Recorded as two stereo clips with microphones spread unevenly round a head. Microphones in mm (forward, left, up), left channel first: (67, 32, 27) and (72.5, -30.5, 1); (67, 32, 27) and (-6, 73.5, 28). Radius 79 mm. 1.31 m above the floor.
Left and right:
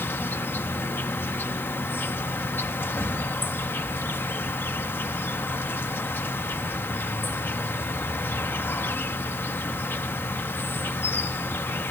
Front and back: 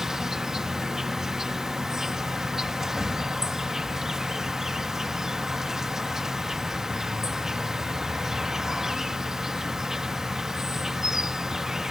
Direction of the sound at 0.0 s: 65° left.